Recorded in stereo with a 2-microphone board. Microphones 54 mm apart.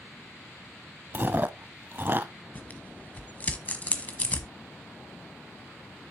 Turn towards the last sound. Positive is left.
turn(degrees=30)  # may be behind; listen again after turning